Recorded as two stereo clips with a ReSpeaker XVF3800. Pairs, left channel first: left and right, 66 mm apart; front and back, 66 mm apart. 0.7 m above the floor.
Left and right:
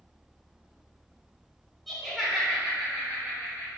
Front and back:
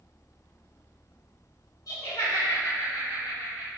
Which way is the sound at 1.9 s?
5° right.